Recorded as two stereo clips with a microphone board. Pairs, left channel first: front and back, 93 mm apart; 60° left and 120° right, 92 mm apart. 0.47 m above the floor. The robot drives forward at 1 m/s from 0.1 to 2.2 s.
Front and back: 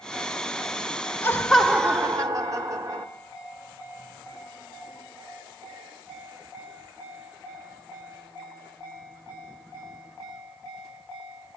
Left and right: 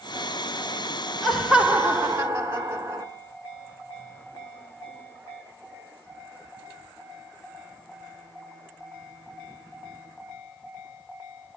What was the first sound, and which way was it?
Laughter, 25° right.